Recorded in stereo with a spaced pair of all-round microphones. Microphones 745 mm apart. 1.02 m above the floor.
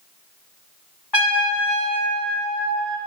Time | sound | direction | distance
1.1 | a trumpet | 35° left (ahead or behind) | 1.6 m